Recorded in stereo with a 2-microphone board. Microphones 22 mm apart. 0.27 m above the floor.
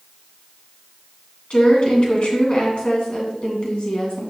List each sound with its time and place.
1.5 s a woman speaking: 60° left (ahead or behind), 2 m